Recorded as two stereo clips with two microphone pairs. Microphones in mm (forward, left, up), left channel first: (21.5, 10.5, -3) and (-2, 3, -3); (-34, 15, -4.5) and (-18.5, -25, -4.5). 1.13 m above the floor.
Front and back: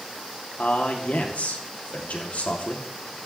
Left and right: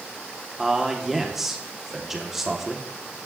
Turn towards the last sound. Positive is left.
turn(degrees=15)